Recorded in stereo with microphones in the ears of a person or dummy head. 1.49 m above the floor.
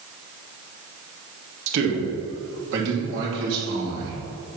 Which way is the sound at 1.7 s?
75° right (ahead or behind).